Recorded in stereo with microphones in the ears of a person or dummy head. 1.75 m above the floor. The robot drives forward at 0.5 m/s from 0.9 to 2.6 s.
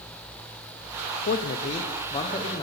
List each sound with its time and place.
1.3 s a man speaking: 50° left (ahead or behind), 0.6 m; by 2.6 s 25° left (ahead or behind), 1.1 m